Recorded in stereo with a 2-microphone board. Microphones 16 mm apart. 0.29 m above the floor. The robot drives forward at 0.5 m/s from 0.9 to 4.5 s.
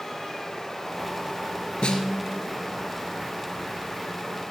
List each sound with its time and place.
1.8 s a snare drum: 75° left (ahead or behind), 1.9 m; by 2.5 s 70° left (ahead or behind), 2 m